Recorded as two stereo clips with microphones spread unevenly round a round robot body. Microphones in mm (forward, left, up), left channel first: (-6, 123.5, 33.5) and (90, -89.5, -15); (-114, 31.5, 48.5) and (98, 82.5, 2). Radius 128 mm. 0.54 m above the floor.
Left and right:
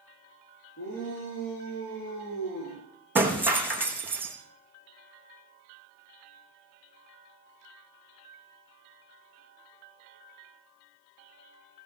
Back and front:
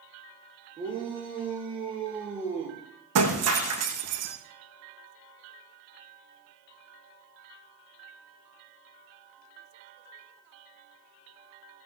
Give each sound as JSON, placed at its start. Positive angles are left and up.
{"t": 0.8, "sound": "a shout", "azimuth_deg": 80, "distance_m": 8.0}
{"t": 3.1, "sound": "breaking glass", "azimuth_deg": 15, "distance_m": 4.5}